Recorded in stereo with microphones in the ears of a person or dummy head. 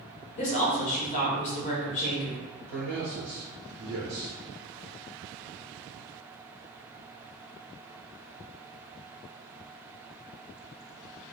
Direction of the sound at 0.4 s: 40° left (ahead or behind).